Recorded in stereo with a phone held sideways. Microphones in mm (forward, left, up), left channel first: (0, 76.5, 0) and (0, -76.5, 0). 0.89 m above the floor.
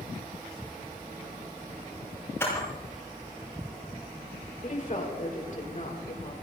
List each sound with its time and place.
2.4 s a camera shutter: 15° left (ahead or behind), 7.5 m
4.6 s a woman speaking: 55° left (ahead or behind), 4 m